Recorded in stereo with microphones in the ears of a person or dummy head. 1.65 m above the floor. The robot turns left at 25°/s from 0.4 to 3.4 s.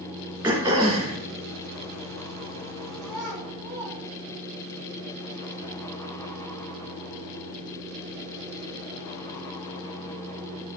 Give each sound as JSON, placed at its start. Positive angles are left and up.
{"t": 0.4, "sound": "throat clearing", "side_deg": -25, "distance_m": 2.5}
{"t": 3.0, "sound": "a child speaking", "side_deg": 0, "distance_m": 3.0}